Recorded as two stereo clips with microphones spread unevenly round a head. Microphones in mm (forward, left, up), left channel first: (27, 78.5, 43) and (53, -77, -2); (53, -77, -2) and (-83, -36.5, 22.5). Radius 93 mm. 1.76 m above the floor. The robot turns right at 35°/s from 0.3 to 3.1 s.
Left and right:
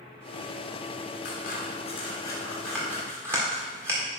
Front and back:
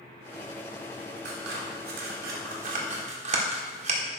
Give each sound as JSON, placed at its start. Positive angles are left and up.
{"t": 1.2, "sound": "scissors", "azimuth_deg": 135, "distance_m": 1.6}